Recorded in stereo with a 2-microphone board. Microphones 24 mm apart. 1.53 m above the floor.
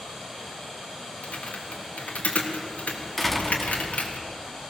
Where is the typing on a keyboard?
85° left, 3 m.